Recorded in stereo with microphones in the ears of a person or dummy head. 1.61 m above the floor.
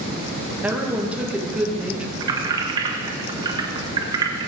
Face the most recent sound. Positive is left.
turn(degrees=-30)  # may be behind; listen again after turning